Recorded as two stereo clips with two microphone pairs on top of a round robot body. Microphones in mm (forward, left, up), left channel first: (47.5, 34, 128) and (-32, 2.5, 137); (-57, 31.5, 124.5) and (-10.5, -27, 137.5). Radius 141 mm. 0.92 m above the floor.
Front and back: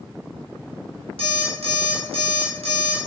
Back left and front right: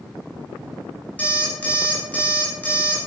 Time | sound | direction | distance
1.2 | an alarm clock | 160° right | 2.5 m